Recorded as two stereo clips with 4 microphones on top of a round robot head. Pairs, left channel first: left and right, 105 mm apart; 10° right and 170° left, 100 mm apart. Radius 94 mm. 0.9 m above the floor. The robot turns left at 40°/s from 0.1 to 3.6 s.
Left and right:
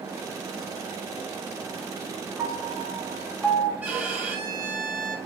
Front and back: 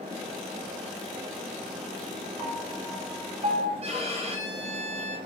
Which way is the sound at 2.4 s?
150° right.